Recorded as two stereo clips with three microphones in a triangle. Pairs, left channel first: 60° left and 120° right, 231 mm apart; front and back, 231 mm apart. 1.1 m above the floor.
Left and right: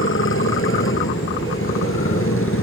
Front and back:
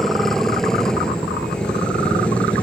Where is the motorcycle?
90° left; by 2.6 s 85° left.